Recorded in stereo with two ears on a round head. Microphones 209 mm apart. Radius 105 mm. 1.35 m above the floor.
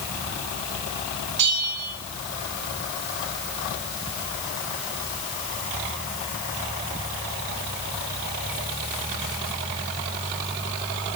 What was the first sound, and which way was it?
A bell, 75° right (ahead or behind).